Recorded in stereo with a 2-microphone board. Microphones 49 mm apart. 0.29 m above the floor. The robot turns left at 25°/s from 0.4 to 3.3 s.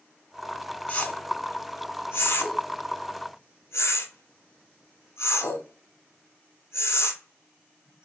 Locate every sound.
0.9 s a whoosh: 30° left (ahead or behind), 0.7 m; by 8.1 s 80° left, 0.7 m